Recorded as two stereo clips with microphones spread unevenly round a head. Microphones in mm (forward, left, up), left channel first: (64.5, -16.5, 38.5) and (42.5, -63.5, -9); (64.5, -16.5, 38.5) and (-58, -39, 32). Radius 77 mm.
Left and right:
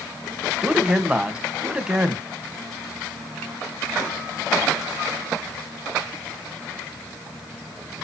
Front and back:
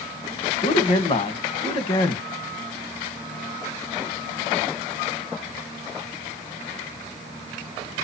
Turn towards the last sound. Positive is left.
turn(degrees=-35)